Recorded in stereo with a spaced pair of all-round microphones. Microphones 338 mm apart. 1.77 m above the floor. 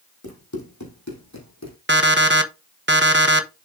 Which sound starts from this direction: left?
Running footsteps, at 0.2 s.